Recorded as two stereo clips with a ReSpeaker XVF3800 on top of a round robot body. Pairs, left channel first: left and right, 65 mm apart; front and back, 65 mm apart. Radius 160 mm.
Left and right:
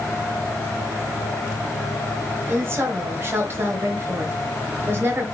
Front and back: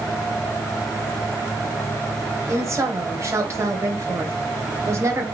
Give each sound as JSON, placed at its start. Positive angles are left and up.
{"t": 2.5, "sound": "a woman speaking", "azimuth_deg": -140, "distance_m": 2.5}